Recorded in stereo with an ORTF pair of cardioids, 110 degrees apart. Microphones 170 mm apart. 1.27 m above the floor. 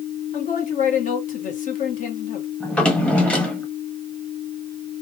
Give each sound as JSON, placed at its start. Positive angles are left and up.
{"t": 0.3, "sound": "a man speaking", "azimuth_deg": 50, "distance_m": 1.3}
{"t": 2.6, "sound": "a drawer", "azimuth_deg": 5, "distance_m": 1.1}